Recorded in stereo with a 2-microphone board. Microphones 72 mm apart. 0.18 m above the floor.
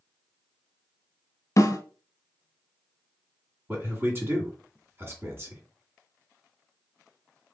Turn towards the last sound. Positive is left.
turn(degrees=-35)  # may be behind; listen again after turning